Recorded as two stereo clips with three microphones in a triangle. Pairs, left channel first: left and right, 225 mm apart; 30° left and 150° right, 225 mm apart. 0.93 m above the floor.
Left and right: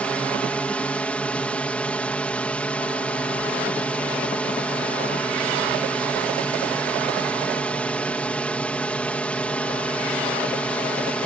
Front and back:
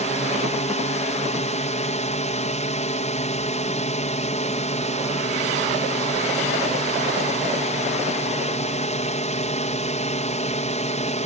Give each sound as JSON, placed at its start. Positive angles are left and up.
{"t": 0.0, "sound": "a drone", "azimuth_deg": 10}